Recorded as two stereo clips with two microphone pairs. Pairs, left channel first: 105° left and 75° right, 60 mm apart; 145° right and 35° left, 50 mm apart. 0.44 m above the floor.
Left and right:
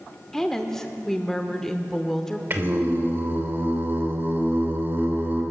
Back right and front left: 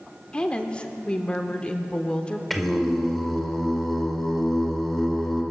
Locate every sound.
0.3 s a woman speaking: straight behind, 0.8 m
2.5 s singing: 60° right, 1.4 m